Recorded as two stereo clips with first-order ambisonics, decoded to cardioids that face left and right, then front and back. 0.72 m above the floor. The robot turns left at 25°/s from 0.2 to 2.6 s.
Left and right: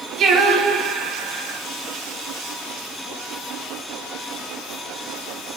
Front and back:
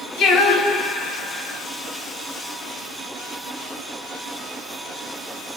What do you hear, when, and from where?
0.2 s singing: 40° right, 1.1 m; by 1.6 s 75° right, 1.1 m